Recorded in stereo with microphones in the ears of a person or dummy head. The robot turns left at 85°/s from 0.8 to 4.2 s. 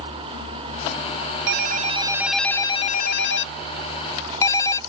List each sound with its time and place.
1.5 s a ringtone: 105° right; by 4.8 s 20° left